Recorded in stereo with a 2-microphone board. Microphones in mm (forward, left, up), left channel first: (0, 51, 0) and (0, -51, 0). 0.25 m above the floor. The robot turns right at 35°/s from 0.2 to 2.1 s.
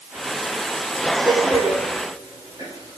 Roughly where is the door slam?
Centre.